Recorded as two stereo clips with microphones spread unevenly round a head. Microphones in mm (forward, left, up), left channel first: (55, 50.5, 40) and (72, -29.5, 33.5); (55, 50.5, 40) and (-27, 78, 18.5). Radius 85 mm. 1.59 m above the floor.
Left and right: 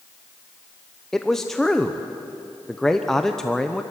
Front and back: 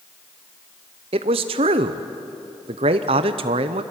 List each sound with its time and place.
1.1 s a man speaking: 170° right, 0.8 m